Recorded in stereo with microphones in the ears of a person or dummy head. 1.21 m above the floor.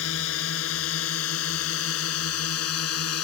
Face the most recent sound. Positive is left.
turn(degrees=85)